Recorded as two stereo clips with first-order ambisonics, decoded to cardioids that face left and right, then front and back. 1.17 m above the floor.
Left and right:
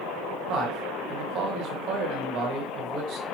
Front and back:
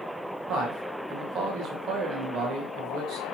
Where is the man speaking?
125° right, 0.9 m.